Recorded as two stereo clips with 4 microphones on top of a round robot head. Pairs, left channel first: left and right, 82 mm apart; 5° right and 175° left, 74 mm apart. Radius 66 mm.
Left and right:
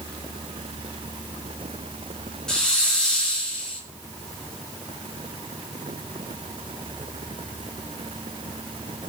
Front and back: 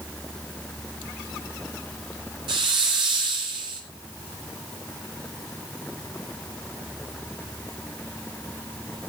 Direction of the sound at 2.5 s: 170° left.